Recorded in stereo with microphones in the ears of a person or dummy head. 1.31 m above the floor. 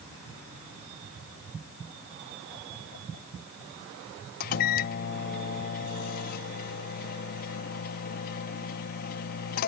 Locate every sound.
4.4 s a microwave: 55° left (ahead or behind)